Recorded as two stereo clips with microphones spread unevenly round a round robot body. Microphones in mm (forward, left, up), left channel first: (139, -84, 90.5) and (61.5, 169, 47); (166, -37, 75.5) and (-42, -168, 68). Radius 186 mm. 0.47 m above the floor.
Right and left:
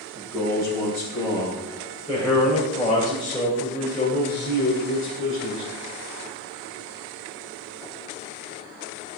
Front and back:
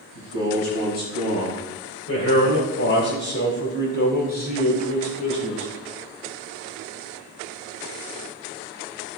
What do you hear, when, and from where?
0.1 s a man speaking: 40° left, 4 m; by 5.7 s 35° right, 2.5 m